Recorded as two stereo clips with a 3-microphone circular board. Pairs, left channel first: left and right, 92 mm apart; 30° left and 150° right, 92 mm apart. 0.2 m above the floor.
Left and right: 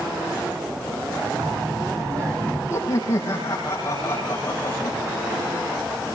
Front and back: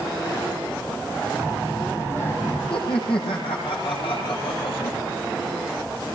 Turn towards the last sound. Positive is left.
turn(degrees=30)